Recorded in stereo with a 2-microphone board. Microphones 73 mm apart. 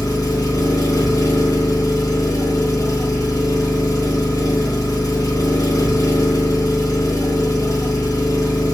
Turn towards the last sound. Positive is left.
turn(degrees=55)  # may be behind; listen again after turning